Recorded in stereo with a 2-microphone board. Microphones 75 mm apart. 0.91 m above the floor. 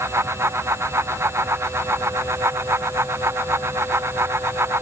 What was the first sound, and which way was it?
Only background noise.